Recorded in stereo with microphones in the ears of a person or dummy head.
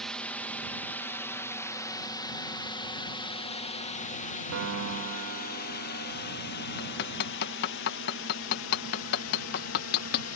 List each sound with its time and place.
0.0 s a drone: 5° left (ahead or behind); by 10.4 s 75° left (ahead or behind)
4.5 s a piano: 75° right (ahead or behind)
6.8 s hammering: 55° left (ahead or behind)